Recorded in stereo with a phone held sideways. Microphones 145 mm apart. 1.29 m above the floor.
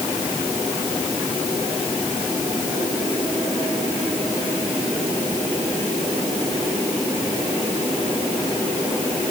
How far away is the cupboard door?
No cupboard door in this recording.